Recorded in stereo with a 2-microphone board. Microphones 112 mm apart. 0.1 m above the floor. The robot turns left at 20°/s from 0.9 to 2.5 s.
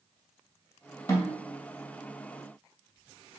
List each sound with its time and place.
1.1 s a snare drum: 30° left (ahead or behind), 2.0 m; by 1.4 s 35° left (ahead or behind), 2.0 m